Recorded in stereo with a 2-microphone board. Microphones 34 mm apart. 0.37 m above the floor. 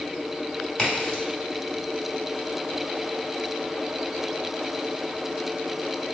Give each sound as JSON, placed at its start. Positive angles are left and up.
{"t": 0.8, "sound": "a crack", "side_deg": 20, "distance_m": 2.5}